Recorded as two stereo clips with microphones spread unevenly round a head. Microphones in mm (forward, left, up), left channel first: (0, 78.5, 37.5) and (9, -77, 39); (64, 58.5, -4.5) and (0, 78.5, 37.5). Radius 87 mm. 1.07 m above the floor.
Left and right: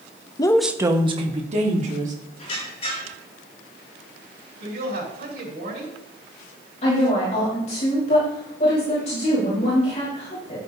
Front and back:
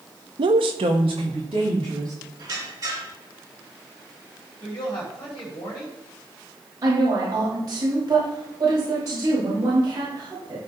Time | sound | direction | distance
0.4 | a woman speaking | 155° left | 0.7 m
2.4 | a squeak | 145° left | 6 m
4.6 | a woman speaking | 65° right | 5 m
6.8 | a woman speaking | 145° left | 5 m